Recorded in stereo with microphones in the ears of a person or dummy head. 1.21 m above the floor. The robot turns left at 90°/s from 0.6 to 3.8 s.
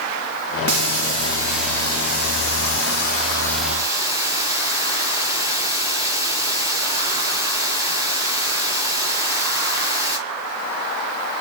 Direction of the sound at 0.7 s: 95° right.